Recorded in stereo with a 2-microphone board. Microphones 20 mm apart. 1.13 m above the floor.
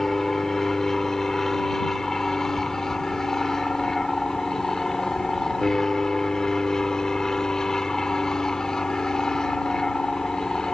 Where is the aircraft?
15° left (ahead or behind); by 10.7 s 30° left (ahead or behind).